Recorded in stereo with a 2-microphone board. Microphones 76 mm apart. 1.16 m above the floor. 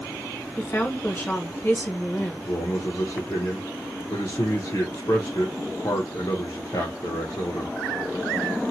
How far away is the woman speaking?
About 0.9 m.